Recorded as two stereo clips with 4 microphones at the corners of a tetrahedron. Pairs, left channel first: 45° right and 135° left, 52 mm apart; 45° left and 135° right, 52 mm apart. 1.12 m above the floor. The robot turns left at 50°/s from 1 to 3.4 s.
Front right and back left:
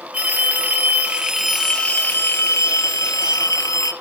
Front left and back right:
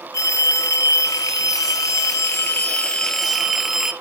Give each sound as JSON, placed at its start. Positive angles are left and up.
{"t": 0.1, "sound": "a phone ringing", "azimuth_deg": 70, "distance_m": 0.9}